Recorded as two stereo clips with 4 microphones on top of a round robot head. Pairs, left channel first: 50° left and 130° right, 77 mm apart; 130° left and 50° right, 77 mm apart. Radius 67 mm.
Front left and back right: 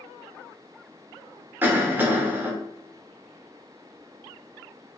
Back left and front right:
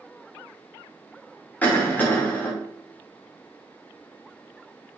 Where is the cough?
Straight behind, 1.0 m.